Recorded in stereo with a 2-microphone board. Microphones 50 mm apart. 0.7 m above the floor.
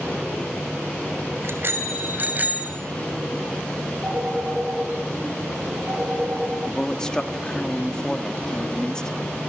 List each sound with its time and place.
1.4 s a bicycle bell: 55° right (ahead or behind), 2.5 m; by 2.8 s 30° right (ahead or behind), 3 m
4.0 s a phone ringing: 30° right (ahead or behind), 9 m
6.7 s a man speaking: 15° left (ahead or behind), 1.5 m